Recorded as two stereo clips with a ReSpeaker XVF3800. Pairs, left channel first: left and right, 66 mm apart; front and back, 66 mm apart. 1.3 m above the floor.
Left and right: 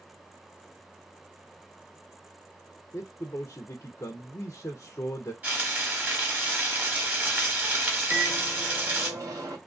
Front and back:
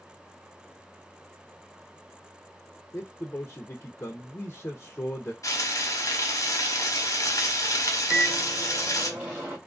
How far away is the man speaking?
About 0.5 m.